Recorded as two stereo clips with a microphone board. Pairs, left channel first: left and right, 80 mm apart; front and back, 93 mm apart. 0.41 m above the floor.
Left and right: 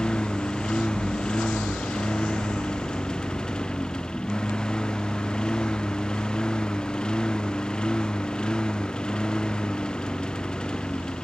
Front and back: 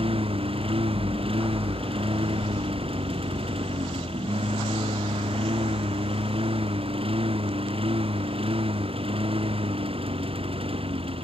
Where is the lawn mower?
170° left.